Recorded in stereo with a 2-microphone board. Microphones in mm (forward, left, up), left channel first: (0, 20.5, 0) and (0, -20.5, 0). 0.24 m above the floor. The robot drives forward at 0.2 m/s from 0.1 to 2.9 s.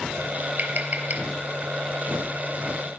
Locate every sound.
0.6 s tapping: 45° right (ahead or behind), 4 m; by 1.2 s 50° right (ahead or behind), 4 m